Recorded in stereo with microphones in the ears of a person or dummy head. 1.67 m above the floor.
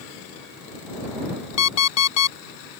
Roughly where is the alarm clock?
Left.